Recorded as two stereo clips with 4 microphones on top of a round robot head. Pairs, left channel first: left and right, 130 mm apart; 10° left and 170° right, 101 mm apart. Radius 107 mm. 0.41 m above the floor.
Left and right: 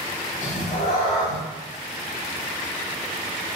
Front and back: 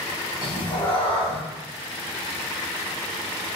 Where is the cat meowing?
55° left, 0.8 m.